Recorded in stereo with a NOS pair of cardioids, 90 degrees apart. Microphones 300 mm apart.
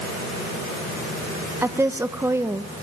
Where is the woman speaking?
10° right, 1.5 m.